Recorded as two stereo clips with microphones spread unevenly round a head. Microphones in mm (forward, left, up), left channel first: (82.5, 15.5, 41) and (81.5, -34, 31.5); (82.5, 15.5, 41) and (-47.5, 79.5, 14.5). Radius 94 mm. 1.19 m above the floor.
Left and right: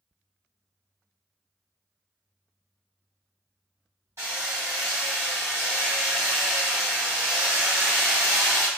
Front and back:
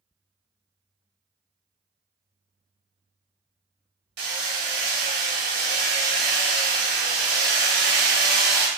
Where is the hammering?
170° right, 1.9 m.